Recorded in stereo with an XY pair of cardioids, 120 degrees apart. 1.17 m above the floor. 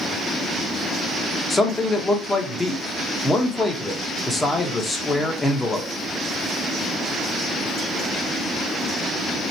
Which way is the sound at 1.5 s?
20° left.